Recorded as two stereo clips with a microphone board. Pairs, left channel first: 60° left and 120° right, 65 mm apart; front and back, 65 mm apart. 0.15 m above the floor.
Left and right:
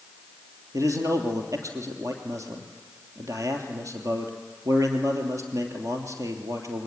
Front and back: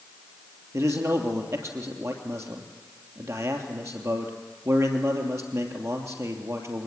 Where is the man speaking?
145° right, 3 m.